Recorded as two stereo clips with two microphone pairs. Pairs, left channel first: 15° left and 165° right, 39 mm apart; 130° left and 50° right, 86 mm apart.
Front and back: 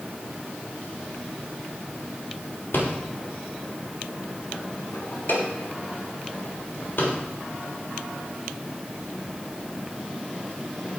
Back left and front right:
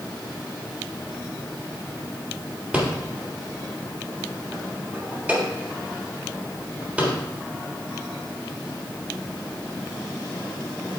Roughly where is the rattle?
Ahead left.